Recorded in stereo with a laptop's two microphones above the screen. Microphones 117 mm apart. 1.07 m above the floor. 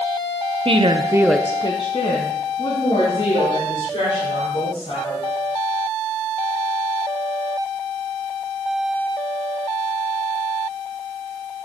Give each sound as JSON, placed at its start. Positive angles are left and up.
{"t": 0.7, "sound": "a woman speaking", "side_deg": -55, "distance_m": 1.1}